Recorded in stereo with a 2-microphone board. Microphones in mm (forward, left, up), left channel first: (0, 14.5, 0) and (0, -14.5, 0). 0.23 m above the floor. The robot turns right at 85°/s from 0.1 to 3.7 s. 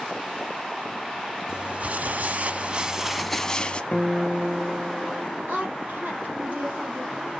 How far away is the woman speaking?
About 4.5 m.